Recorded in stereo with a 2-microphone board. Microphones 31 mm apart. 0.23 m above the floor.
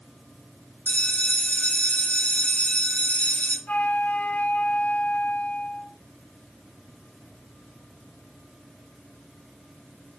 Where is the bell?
55° left (ahead or behind), 3 m.